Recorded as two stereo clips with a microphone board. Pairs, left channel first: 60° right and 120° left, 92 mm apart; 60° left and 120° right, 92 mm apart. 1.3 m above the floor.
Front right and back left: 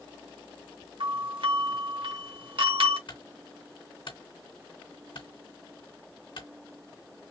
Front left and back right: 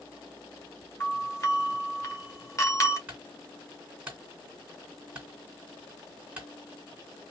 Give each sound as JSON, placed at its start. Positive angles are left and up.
{"t": 1.0, "sound": "a doorbell", "azimuth_deg": 115, "distance_m": 1.4}
{"t": 3.1, "sound": "a clunk", "azimuth_deg": -45, "distance_m": 2.5}